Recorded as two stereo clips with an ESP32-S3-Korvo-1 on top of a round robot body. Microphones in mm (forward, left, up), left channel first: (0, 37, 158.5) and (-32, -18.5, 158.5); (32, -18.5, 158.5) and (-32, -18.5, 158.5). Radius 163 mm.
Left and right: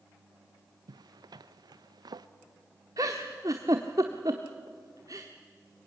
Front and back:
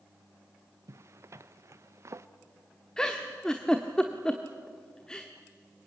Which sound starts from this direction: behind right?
A zipper, at 0.9 s.